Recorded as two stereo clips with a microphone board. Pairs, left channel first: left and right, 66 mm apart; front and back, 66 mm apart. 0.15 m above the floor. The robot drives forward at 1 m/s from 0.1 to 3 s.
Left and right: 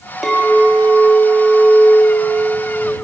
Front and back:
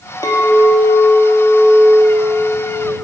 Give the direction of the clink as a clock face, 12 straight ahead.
12 o'clock.